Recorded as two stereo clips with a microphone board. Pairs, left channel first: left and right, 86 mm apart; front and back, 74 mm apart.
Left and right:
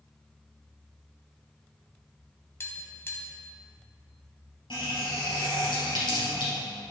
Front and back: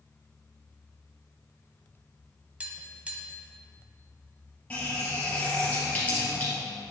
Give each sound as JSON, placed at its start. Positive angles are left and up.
{"t": 2.6, "sound": "tapping", "azimuth_deg": 120, "distance_m": 1.6}
{"t": 4.7, "sound": "a running tap", "azimuth_deg": 70, "distance_m": 3.0}